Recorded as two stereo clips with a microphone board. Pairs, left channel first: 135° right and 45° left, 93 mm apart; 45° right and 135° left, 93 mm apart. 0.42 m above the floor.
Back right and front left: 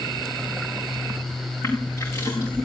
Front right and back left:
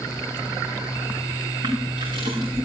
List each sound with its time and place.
1.6 s crushing: 170° left, 9 m